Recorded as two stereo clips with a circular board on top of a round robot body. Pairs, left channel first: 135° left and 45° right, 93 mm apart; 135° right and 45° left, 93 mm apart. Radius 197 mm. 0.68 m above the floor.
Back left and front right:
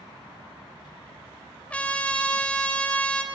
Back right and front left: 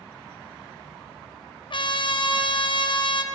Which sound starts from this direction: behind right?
A trumpet, at 1.7 s.